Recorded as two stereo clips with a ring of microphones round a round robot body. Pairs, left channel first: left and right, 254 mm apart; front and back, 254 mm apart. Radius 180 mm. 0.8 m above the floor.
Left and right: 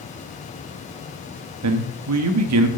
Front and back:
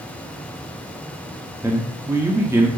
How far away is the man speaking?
About 1.2 m.